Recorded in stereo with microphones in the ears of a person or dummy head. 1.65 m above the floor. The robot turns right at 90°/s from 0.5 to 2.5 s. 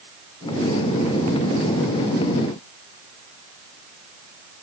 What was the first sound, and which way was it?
Only background noise.